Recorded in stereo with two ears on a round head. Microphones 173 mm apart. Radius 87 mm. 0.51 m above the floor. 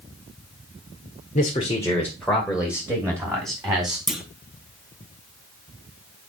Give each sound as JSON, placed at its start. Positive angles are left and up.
{"t": 1.4, "sound": "a man speaking", "side_deg": 35, "distance_m": 1.4}
{"t": 4.1, "sound": "a clunk", "side_deg": 0, "distance_m": 1.1}